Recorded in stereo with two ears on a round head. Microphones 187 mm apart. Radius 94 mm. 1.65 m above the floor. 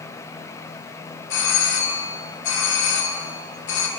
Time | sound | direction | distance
1.3 | a doorbell | 60° left (ahead or behind) | 3 m